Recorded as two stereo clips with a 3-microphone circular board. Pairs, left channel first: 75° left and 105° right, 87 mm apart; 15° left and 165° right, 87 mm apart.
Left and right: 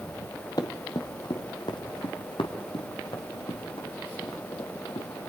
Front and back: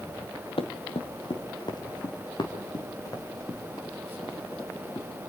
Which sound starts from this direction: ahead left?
Running footsteps, at 0.6 s.